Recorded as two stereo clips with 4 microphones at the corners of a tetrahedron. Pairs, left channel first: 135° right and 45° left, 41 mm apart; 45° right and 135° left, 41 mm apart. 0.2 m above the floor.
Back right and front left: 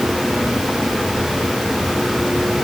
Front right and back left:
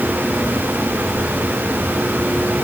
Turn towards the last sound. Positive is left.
No sound to turn to.